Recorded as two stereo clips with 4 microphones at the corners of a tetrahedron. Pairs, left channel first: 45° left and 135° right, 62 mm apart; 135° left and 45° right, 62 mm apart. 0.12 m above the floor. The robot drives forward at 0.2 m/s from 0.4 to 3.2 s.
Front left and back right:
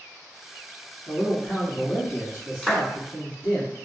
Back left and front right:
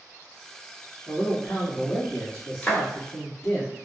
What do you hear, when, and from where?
1.1 s a man speaking: 150° right, 1.6 m; by 3.6 s 160° right, 1.8 m
2.6 s a clap: 115° left, 1.0 m; by 2.8 s 120° left, 1.0 m